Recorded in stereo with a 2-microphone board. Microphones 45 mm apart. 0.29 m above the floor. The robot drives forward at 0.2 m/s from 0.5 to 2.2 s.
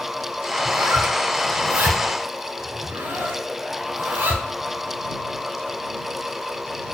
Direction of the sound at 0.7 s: 50° right (ahead or behind).